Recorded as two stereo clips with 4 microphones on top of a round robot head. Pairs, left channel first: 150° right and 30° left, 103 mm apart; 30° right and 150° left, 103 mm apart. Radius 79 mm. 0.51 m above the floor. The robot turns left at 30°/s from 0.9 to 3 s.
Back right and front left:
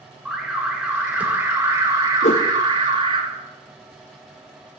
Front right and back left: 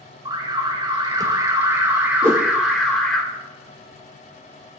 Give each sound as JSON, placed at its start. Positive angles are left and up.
{"t": 0.2, "sound": "an alarm", "azimuth_deg": 115, "distance_m": 2.0}
{"t": 2.2, "sound": "a whoosh", "azimuth_deg": -140, "distance_m": 2.5}